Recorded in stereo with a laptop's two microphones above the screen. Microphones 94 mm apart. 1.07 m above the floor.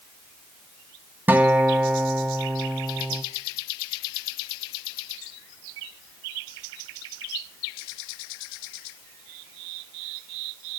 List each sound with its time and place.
1.3 s a guitar: 20° right (ahead or behind), 0.5 m